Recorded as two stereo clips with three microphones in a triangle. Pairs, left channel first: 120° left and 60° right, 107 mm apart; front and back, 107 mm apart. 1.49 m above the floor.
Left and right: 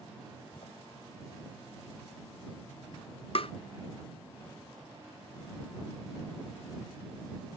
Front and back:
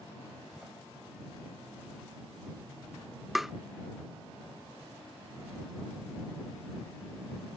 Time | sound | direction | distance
0.5 | a door slam | 95° left | ?
3.4 | tapping | 90° left | ?